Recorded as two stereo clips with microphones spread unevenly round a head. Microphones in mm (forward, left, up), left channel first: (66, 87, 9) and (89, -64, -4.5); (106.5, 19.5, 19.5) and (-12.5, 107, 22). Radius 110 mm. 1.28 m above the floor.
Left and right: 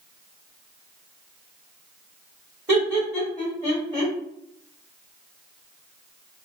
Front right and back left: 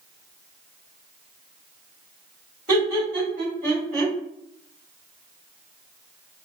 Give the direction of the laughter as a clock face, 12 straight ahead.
5 o'clock.